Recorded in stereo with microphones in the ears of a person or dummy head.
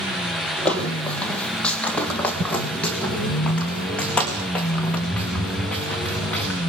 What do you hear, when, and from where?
0.7 s footsteps: 10° left (ahead or behind), 2.5 m